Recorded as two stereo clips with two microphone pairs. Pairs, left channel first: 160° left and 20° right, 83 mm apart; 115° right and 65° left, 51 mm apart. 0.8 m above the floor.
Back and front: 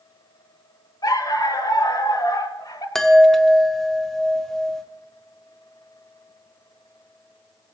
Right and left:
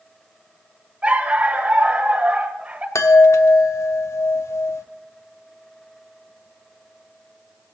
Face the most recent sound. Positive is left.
turn(degrees=-115)